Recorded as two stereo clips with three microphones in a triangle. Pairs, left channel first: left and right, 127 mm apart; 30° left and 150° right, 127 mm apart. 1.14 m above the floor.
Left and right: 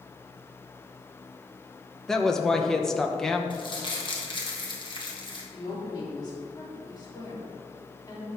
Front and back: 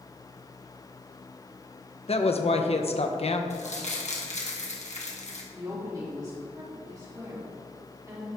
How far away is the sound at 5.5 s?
About 3 m.